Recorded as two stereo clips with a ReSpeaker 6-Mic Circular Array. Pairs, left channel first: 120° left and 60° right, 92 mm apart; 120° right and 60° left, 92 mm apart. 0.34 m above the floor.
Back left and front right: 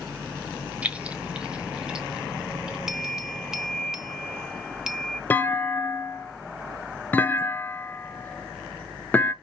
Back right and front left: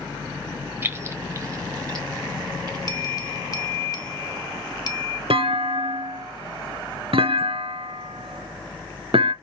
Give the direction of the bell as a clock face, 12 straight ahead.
5 o'clock.